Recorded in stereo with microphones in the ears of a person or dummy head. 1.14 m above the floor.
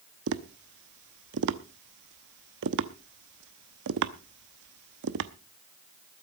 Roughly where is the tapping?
Right.